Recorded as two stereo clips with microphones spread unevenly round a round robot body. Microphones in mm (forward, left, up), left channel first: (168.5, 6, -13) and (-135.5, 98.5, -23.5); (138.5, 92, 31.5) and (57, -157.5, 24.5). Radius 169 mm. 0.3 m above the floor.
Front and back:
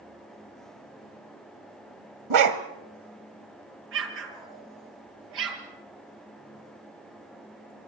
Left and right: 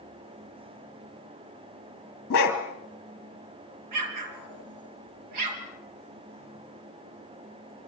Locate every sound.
2.3 s a dog barking: 135° left, 1.7 m
3.9 s an explosion: 140° right, 2.5 m